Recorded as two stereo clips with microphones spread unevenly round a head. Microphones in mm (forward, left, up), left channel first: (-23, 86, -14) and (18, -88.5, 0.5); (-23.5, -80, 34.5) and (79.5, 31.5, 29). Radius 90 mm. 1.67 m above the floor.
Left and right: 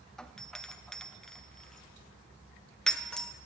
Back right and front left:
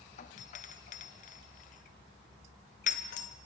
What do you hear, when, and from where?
0.2 s a doorbell: 170° right, 1.2 m